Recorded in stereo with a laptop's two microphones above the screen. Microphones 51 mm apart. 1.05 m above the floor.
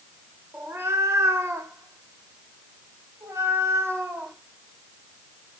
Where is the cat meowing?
60° right (ahead or behind), 1.5 m; by 4.3 s 55° right (ahead or behind), 3 m.